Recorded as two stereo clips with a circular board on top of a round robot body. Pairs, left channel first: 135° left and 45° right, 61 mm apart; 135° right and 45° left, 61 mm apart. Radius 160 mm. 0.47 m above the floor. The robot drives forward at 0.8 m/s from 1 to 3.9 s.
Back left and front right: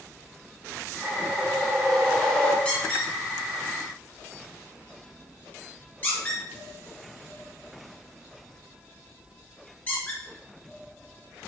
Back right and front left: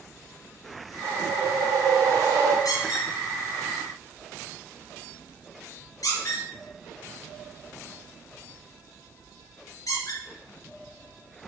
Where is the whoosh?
35° left, 3 m; by 2.5 s 55° left, 2 m.